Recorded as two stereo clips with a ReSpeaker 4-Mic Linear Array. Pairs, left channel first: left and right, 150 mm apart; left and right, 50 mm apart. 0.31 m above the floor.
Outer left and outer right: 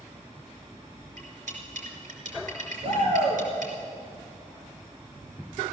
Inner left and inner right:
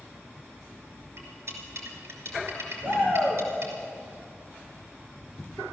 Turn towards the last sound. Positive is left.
turn(degrees=-45)  # may be behind; listen again after turning